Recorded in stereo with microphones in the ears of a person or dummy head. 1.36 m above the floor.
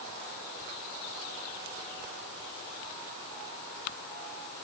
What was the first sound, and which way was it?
Only background noise.